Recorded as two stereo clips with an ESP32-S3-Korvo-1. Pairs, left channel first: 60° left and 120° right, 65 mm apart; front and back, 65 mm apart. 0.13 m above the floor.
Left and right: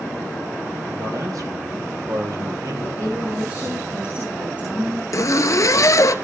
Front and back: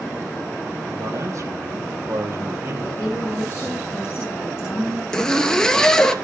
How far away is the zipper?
About 1.0 m.